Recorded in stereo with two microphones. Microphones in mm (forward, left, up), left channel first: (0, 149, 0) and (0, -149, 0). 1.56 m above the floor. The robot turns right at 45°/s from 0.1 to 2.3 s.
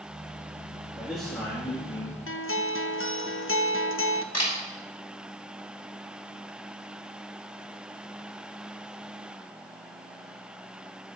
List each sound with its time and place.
0.9 s a man speaking: 10° right, 3 m; by 2.2 s 45° left, 3 m
2.3 s a guitar: 45° left (ahead or behind), 0.6 m
4.3 s a camera shutter: 60° left (ahead or behind), 5 m